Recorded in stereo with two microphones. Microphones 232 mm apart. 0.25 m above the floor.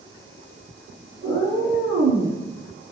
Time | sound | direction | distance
1.2 | a cat meowing | 75° right (ahead or behind) | 1.2 m